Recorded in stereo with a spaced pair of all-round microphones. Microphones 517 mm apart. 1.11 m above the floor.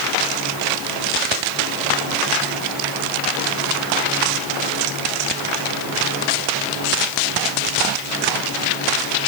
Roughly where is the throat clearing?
I don't hear throat clearing.